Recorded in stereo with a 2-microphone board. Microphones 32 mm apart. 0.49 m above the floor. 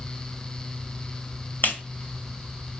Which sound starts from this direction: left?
A clap, at 1.6 s.